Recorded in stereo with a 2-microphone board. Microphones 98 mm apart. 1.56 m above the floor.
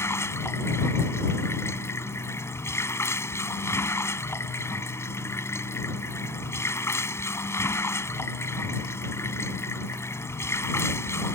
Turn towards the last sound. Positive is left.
turn(degrees=25)  # may be behind; listen again after turning